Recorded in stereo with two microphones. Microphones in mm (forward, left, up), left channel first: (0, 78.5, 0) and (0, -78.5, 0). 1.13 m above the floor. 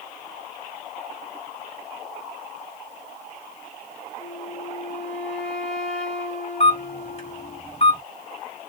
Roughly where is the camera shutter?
Left.